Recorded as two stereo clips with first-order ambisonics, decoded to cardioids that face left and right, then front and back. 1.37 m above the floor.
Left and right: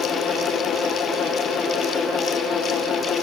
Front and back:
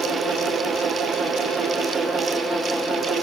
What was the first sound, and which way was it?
Only background noise.